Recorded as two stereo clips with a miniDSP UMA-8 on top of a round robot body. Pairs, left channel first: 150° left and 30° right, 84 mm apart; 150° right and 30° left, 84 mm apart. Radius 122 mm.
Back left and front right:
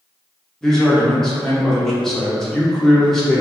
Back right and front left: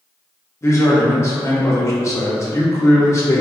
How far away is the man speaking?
About 1.1 m.